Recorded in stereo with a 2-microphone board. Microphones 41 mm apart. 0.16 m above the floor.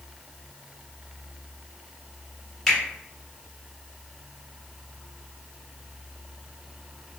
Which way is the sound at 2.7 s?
10° left (ahead or behind).